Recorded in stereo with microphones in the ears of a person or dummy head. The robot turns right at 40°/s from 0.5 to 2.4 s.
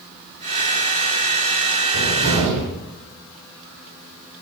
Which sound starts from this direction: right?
A cupboard door, at 1.9 s.